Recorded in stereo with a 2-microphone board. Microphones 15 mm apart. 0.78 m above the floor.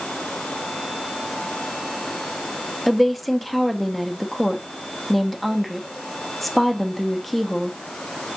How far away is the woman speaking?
About 0.8 m.